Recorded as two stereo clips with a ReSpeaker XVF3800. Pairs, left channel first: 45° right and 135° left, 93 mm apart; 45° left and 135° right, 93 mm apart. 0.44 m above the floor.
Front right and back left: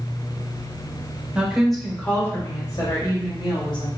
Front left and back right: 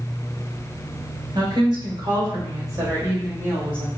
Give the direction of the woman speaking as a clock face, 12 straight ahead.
5 o'clock.